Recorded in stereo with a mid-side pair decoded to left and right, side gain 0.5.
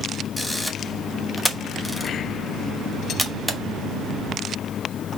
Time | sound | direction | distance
0.4 | a camera shutter | straight ahead | 1.0 m